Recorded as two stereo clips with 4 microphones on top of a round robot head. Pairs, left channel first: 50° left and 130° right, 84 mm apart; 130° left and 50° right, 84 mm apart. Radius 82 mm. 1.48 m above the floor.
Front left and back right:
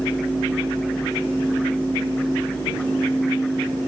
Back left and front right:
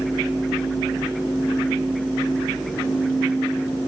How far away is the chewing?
No chewing in this recording.